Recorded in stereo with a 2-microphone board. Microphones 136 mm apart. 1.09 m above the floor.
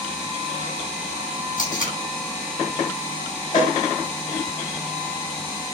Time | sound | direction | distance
1.6 | tape being pulled | 80° left | 7.5 m
3.5 | a cowbell | 65° left (ahead or behind) | 6 m